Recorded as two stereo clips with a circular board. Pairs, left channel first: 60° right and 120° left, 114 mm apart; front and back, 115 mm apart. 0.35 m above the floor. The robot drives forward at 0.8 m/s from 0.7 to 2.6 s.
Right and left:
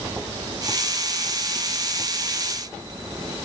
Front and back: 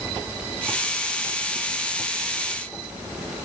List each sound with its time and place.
Only background noise.